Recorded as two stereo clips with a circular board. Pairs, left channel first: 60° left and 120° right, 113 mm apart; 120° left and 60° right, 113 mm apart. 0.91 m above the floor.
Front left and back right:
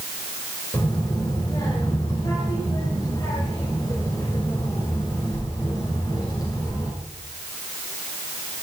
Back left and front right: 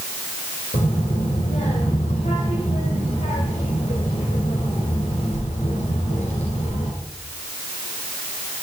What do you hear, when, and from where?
0.7 s a child speaking: 120° left, 3 m